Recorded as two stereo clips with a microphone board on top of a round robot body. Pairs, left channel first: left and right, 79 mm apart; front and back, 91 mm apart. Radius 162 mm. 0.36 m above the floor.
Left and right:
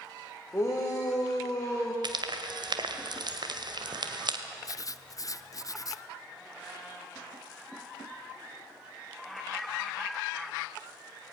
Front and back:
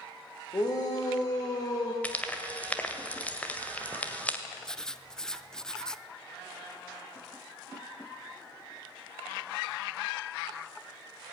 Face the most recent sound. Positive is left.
turn(degrees=80)